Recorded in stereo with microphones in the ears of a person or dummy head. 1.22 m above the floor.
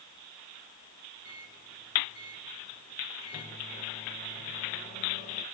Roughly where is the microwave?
Left.